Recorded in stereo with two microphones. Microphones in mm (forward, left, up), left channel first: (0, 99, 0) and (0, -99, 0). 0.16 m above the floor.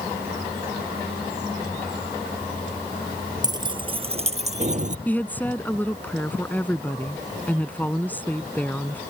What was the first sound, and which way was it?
Keys jangling, 20° right (ahead or behind).